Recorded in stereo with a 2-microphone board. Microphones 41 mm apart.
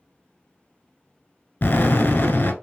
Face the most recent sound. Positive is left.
turn(degrees=45)  # may be behind; listen again after turning